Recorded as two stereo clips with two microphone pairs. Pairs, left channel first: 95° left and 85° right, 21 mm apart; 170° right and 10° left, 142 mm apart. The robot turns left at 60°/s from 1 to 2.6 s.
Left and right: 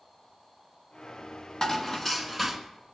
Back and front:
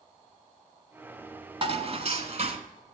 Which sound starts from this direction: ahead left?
Dishes clattering, at 1.6 s.